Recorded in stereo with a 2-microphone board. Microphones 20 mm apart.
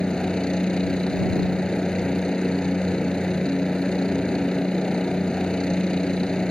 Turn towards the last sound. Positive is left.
turn(degrees=45)  # may be behind; listen again after turning